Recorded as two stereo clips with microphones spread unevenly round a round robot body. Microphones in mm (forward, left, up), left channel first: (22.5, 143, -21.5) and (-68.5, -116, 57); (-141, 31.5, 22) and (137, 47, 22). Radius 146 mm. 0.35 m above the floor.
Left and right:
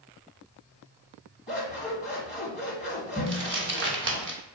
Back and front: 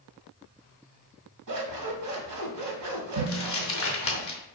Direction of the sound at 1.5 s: 15° right.